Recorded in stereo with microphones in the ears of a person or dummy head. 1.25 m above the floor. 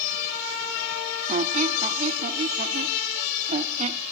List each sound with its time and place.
1.3 s a squeak: 40° right (ahead or behind), 1.1 m